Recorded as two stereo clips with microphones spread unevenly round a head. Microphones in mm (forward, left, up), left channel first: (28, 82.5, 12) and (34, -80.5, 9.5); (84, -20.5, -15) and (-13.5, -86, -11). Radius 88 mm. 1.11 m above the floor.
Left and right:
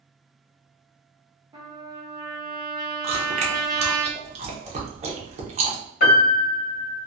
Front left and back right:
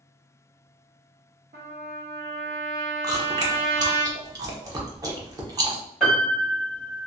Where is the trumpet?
160° right, 1.0 m.